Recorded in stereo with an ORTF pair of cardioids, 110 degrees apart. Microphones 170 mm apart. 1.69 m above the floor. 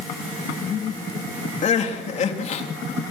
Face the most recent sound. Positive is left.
turn(degrees=45)